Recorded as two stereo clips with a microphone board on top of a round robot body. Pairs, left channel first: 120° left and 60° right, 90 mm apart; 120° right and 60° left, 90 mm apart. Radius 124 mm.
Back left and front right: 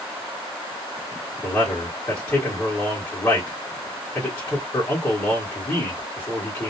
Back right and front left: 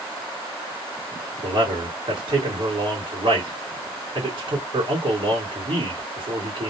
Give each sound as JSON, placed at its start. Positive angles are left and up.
{"t": 1.4, "sound": "a man speaking", "azimuth_deg": 65, "distance_m": 1.5}